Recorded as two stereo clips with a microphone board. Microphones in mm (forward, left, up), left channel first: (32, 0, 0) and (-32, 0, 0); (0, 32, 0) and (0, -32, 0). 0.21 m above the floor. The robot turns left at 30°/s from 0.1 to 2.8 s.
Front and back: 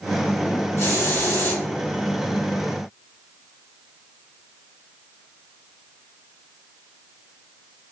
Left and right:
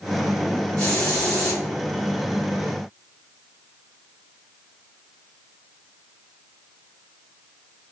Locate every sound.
0.8 s a hiss: 15° left, 2.0 m; by 1.6 s 10° right, 2.0 m